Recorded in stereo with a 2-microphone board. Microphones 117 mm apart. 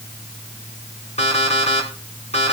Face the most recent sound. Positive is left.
turn(degrees=70)  # may be behind; listen again after turning